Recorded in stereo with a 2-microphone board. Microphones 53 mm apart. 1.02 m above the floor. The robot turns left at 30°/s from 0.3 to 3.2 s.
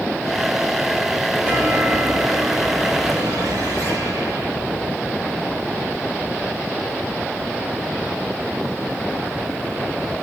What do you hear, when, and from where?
1.4 s a chime: 30° right, 5.5 m; by 4.5 s 85° right, 5.5 m